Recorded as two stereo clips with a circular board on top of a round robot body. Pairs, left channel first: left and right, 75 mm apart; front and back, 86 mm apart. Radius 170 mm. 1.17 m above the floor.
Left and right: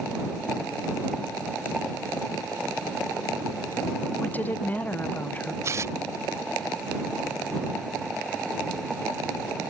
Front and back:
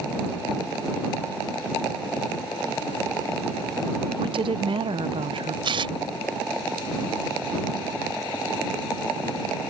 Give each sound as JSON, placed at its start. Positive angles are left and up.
{"t": 4.2, "sound": "a woman speaking", "azimuth_deg": 160}
{"t": 5.6, "sound": "tearing paper", "azimuth_deg": -145}